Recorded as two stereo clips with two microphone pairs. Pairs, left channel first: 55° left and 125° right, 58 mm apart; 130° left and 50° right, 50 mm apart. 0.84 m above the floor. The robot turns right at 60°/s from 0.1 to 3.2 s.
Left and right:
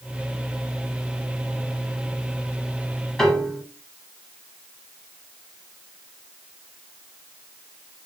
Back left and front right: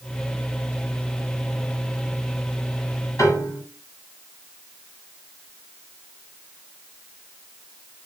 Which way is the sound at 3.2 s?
135° left.